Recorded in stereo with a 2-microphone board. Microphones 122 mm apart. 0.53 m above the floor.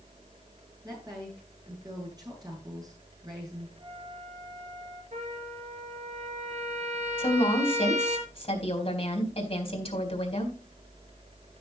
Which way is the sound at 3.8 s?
35° right (ahead or behind).